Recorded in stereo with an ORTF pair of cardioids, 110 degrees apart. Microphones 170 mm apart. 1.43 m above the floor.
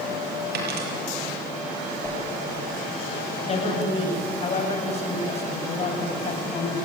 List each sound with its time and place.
0.5 s a dropped coin: 65° right, 6.5 m
2.0 s a whoosh: 5° left, 9.5 m
3.4 s a man speaking: 35° left, 8.5 m